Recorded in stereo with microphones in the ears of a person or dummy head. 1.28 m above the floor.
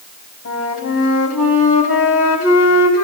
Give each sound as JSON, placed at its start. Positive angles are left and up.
{"t": 0.5, "sound": "a flute", "side_deg": 80, "distance_m": 4.0}